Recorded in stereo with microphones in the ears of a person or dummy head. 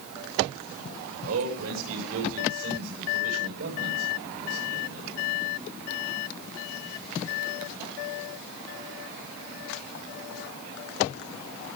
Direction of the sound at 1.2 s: 75° right (ahead or behind).